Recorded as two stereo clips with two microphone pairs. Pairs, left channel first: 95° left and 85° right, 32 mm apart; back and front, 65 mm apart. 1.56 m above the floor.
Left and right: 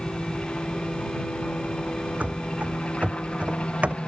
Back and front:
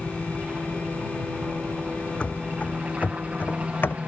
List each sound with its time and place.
0.0 s a helicopter: 65° left
2.2 s running footsteps: 110° right; by 4.0 s 125° right